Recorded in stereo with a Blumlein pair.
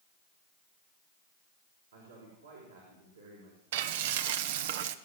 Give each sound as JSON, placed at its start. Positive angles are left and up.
{"t": 1.9, "sound": "a man speaking", "azimuth_deg": -70, "distance_m": 5.0}
{"t": 3.7, "sound": "frying", "azimuth_deg": -55, "distance_m": 0.8}